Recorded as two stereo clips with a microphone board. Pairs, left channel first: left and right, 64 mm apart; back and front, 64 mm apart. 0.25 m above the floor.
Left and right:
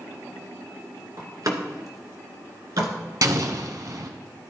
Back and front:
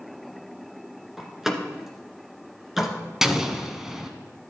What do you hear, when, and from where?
1.2 s a door slam: 85° right, 2.0 m
3.2 s an explosion: 85° right, 1.1 m